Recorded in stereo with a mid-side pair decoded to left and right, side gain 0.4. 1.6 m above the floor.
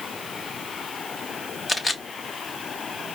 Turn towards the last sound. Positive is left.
turn(degrees=35)